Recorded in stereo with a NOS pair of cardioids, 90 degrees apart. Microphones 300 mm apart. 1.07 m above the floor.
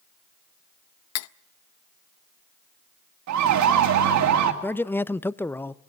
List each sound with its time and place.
1.1 s cutlery clinking: 65° left, 0.5 m
3.3 s a siren: 70° right, 2 m
4.6 s a man speaking: 5° left, 0.5 m